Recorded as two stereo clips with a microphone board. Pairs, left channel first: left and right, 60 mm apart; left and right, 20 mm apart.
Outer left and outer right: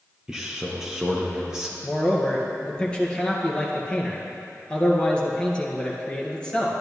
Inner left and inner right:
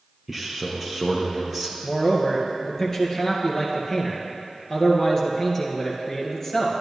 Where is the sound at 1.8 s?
15° left (ahead or behind), 1.9 m.